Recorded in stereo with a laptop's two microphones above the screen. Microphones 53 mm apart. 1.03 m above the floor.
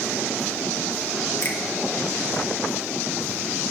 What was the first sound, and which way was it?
A finger snap, 55° left (ahead or behind).